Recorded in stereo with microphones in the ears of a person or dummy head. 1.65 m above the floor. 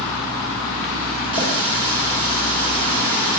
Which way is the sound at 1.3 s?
25° left (ahead or behind).